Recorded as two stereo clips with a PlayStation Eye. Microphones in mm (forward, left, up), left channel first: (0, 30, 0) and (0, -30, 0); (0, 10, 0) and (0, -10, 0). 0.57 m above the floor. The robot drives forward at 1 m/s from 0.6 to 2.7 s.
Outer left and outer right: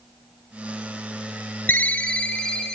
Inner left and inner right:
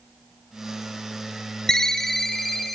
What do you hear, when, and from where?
1.7 s a ringtone: 35° left (ahead or behind), 0.7 m; by 2.8 s 15° left (ahead or behind), 1.6 m